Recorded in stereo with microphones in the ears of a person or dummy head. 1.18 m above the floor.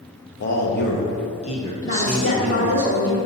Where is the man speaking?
60° left (ahead or behind), 1.3 m; by 2.8 s 15° right (ahead or behind), 1.2 m.